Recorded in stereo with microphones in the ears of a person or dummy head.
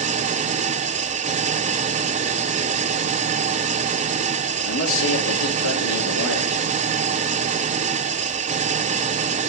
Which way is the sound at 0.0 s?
35° right (ahead or behind).